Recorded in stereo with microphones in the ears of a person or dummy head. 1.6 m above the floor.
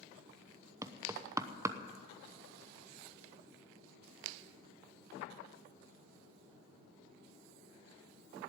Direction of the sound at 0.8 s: 20° right (ahead or behind).